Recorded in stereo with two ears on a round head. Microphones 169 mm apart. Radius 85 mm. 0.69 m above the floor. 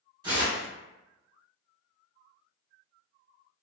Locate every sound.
0.2 s tearing paper: 25° right (ahead or behind), 1.2 m